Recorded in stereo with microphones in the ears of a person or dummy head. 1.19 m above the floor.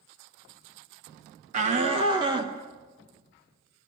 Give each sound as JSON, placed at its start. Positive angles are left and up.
{"t": 1.5, "sound": "a shout", "side_deg": -40, "distance_m": 1.1}